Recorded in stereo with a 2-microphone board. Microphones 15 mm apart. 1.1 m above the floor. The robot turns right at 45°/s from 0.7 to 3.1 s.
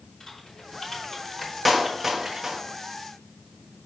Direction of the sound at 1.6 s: Centre (ahead or behind).